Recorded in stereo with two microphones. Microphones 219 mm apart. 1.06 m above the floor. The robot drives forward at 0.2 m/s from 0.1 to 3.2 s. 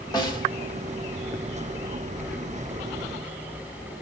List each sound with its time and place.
0.1 s a snare drum: 20° left (ahead or behind), 1.1 m